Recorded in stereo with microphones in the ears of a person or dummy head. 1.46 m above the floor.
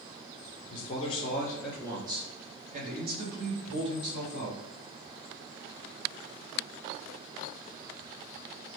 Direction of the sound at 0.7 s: 50° left (ahead or behind).